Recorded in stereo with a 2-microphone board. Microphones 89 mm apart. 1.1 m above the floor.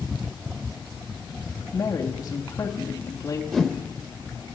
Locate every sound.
1.7 s a woman speaking: 40° left (ahead or behind), 2.5 m
3.5 s a whoosh: centre (ahead or behind), 1.2 m